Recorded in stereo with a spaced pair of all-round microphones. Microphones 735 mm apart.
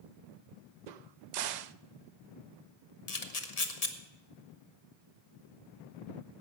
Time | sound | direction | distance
0.9 | a crack | 70° right (ahead or behind) | 0.6 m
3.1 | a camera shutter | 55° left (ahead or behind) | 1.3 m